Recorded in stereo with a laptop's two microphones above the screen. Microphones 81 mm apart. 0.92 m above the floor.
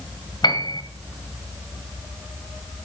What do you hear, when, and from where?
0.4 s a piano: 60° left (ahead or behind), 1.5 m